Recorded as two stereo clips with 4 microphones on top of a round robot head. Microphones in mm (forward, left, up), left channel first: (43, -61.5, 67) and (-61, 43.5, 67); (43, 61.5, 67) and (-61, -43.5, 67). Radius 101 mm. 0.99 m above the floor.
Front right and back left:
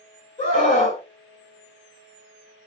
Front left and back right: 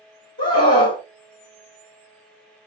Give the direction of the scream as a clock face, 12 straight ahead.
12 o'clock.